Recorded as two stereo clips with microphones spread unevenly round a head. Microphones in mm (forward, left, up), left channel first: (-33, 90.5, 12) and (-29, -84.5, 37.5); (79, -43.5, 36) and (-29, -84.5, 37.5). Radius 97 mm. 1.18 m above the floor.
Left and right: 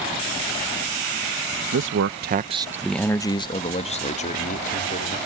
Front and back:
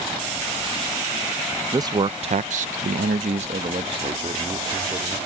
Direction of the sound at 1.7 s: 100° right.